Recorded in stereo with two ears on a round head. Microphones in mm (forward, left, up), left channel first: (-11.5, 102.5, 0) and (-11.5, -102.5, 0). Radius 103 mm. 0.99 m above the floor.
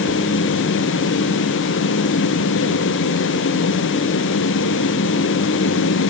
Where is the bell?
I don't hear a bell.